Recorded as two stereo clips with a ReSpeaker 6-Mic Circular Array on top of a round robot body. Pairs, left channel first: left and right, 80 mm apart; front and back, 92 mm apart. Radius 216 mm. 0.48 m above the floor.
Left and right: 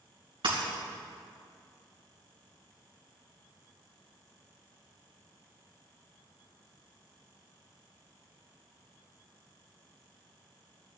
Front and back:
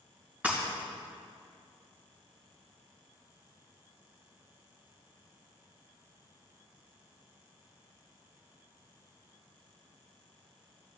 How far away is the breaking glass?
About 4 m.